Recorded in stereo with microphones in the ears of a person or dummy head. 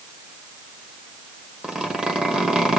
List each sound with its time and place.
1.6 s a zipper: centre (ahead or behind), 1.1 m